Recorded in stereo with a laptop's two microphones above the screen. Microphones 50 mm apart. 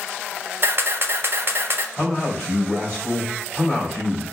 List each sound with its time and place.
0.6 s a camera shutter: 55° right (ahead or behind), 0.6 m
1.9 s a man speaking: 25° left (ahead or behind), 2 m